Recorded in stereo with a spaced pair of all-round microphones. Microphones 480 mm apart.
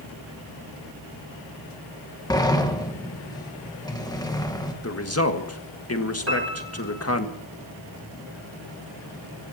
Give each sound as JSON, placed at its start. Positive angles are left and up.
{"t": 2.3, "sound": "a sliding door", "side_deg": 10, "distance_m": 1.5}
{"t": 4.8, "sound": "a man speaking", "side_deg": 30, "distance_m": 1.6}
{"t": 6.3, "sound": "a piano", "side_deg": -30, "distance_m": 3.5}